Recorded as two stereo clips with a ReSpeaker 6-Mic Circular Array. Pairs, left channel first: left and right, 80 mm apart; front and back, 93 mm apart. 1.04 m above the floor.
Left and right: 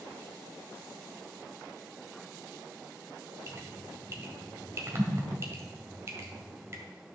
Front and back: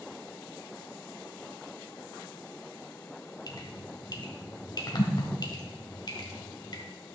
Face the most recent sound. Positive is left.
turn(degrees=-35)